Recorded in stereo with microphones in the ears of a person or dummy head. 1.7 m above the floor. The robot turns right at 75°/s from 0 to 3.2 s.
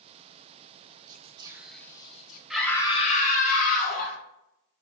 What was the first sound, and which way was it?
Whispering, 50° right.